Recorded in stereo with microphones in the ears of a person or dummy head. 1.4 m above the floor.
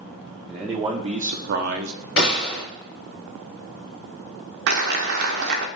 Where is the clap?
65° right (ahead or behind), 0.8 m.